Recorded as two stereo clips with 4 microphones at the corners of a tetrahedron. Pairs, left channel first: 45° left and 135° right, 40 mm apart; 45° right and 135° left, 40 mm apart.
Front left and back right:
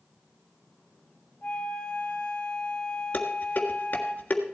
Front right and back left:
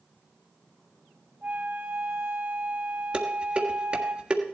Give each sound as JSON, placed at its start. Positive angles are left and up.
{"t": 1.4, "sound": "a flute", "azimuth_deg": 100, "distance_m": 2.5}
{"t": 3.1, "sound": "dishes clattering", "azimuth_deg": 80, "distance_m": 1.6}